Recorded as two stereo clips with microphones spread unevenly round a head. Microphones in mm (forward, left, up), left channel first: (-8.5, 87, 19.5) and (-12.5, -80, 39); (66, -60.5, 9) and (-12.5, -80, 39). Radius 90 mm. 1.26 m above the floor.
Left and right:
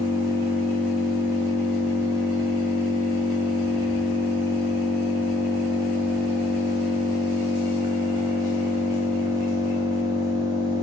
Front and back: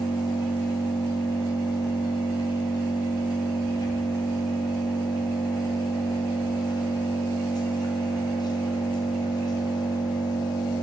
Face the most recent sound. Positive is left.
turn(degrees=-30)